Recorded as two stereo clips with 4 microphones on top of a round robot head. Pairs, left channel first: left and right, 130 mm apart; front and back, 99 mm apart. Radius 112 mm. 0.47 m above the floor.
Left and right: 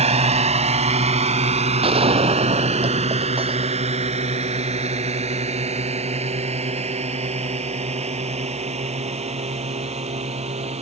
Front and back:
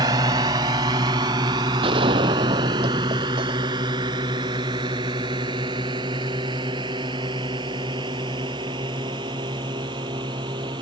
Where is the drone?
125° right; by 10.8 s 130° right.